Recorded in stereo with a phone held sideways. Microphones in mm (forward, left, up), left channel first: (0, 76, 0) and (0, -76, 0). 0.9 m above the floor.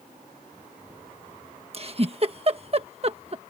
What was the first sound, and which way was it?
A giggle, 40° right (ahead or behind).